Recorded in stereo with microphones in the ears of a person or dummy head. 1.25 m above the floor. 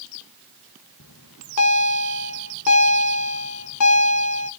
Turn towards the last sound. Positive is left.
turn(degrees=80)